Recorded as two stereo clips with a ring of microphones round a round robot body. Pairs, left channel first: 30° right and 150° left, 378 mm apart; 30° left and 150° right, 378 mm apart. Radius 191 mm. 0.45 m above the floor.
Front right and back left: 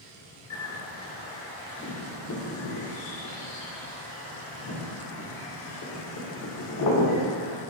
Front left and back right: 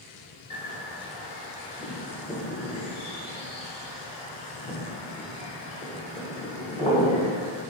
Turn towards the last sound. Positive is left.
turn(degrees=-40)